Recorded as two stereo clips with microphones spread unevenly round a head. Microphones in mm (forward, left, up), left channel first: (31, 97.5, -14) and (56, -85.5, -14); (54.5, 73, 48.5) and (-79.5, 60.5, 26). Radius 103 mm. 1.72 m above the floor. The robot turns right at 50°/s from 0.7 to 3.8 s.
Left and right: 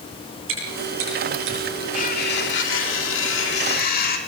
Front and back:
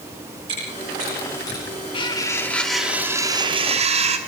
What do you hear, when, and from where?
0.5 s chewing: 105° right, 9 m; by 1.6 s 65° right, 9 m
1.9 s cutlery clinking: 50° left, 2.5 m; by 4.2 s 145° left, 2.5 m